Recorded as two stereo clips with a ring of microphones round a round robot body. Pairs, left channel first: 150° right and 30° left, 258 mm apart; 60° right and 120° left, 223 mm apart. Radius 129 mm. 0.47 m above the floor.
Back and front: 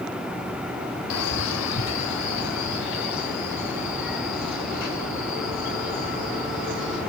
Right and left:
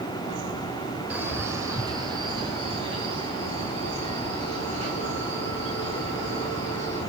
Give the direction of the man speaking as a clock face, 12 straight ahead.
5 o'clock.